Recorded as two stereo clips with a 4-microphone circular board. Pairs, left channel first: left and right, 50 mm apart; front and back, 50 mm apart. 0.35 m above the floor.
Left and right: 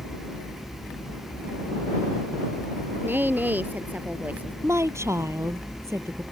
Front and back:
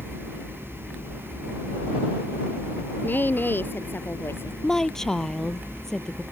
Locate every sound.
3.0 s a woman speaking: 45° right; by 4.5 s 30° right
4.6 s a woman speaking: 80° right